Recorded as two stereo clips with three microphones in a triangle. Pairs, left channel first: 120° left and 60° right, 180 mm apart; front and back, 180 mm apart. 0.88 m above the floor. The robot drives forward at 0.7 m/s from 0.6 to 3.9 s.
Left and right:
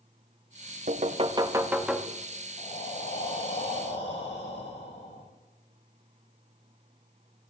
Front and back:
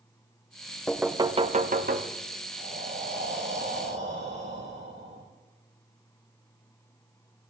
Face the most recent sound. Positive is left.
turn(degrees=175)